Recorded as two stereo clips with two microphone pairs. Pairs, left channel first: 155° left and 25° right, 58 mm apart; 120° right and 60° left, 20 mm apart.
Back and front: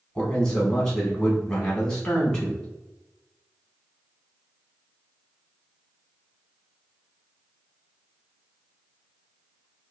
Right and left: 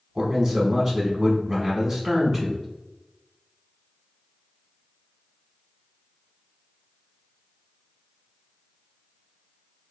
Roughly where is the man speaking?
Left.